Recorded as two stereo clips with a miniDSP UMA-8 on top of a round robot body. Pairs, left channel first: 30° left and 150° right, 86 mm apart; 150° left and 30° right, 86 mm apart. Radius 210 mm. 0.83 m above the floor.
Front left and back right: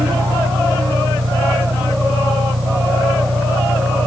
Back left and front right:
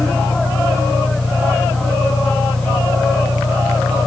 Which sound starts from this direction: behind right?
An engine running, at 0.0 s.